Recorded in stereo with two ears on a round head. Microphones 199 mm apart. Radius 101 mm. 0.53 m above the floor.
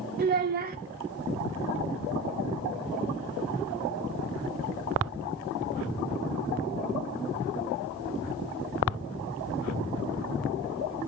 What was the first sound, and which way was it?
A child speaking, 45° right (ahead or behind).